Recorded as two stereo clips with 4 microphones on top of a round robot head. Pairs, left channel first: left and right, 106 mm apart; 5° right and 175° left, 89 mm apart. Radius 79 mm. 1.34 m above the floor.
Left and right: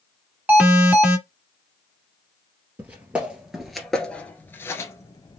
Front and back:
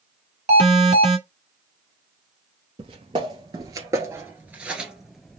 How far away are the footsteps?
About 1.8 m.